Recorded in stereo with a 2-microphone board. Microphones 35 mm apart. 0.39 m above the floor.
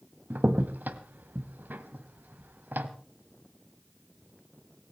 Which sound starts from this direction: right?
A crack, at 0.3 s.